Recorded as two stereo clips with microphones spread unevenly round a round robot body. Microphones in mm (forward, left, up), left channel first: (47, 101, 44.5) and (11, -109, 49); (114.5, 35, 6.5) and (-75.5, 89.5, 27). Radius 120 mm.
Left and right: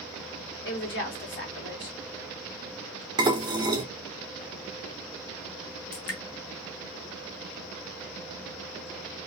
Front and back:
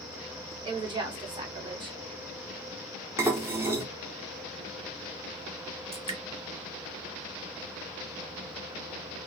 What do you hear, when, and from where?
0.6 s a woman speaking: 95° left, 1.4 m
3.2 s dishes clattering: 125° right, 0.6 m
5.9 s dripping: 100° left, 0.9 m